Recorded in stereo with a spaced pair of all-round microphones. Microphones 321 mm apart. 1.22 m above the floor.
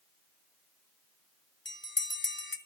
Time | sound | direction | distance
1.6 | a bell | 35° left (ahead or behind) | 1.2 m